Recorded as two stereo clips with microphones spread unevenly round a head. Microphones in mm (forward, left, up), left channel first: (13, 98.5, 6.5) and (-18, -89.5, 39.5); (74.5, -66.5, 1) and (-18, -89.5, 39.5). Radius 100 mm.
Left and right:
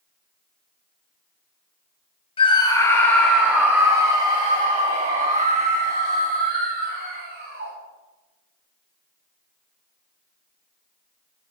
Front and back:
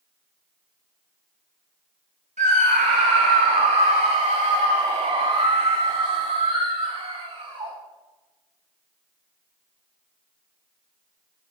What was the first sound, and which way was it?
A scream, 145° left.